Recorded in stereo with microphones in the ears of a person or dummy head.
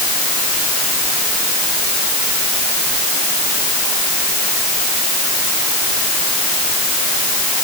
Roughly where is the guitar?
I don't hear a guitar.